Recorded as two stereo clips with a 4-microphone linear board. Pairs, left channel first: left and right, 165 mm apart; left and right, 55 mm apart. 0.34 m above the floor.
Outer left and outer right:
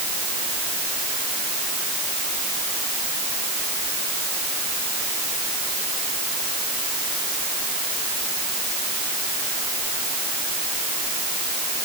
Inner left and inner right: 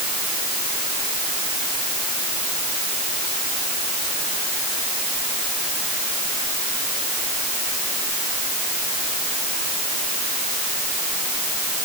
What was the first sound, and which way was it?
Only background noise.